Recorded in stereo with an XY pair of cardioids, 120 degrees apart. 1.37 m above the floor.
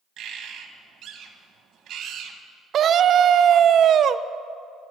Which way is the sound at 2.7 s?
50° right.